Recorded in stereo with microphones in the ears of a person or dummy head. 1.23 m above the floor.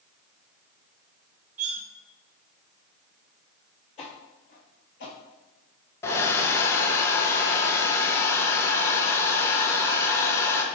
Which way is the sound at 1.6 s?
40° right (ahead or behind).